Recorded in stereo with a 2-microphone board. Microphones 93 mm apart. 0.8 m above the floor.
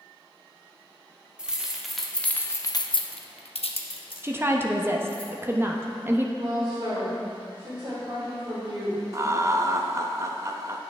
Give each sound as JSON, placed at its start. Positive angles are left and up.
{"t": 1.4, "sound": "keys jangling", "side_deg": -10, "distance_m": 1.0}
{"t": 4.2, "sound": "a woman speaking", "side_deg": -25, "distance_m": 0.6}
{"t": 6.4, "sound": "a woman speaking", "side_deg": -70, "distance_m": 3.0}
{"t": 9.1, "sound": "laughter", "side_deg": -30, "distance_m": 0.5}